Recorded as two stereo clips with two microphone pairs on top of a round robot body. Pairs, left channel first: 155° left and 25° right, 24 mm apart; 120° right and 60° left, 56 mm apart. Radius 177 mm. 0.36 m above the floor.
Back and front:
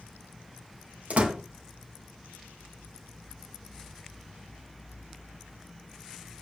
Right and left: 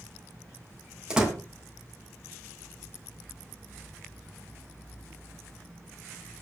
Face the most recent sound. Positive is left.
turn(degrees=-15)